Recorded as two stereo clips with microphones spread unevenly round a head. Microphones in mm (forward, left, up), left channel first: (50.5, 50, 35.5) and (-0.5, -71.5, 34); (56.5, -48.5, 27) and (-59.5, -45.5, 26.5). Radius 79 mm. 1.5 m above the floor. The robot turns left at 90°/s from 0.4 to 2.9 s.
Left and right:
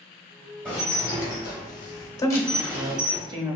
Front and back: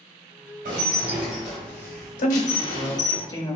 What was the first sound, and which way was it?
Dishes clattering, 150° left.